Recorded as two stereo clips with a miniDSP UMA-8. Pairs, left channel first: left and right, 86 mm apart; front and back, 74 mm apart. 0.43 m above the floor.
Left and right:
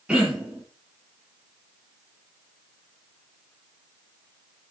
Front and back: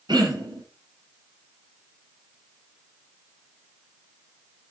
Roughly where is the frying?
No frying in this recording.